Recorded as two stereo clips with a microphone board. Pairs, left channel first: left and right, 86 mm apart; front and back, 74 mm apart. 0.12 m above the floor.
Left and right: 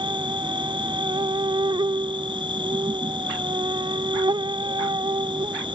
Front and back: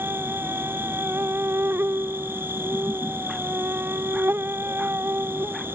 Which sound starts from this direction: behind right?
An insect, at 0.0 s.